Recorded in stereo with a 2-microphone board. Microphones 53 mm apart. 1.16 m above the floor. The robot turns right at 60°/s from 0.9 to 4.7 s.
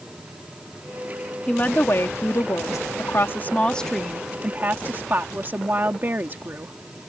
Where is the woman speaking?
25° left; by 6.7 s 140° right.